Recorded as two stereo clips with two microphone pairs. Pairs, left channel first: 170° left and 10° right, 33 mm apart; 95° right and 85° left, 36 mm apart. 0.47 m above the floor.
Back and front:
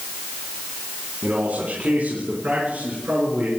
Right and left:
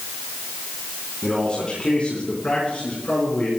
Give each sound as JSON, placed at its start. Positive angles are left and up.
{"t": 1.2, "sound": "a man speaking", "azimuth_deg": -30, "distance_m": 3.0}